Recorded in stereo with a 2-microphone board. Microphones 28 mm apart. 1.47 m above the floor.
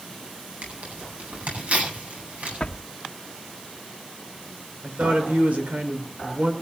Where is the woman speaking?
90° right, 5 m.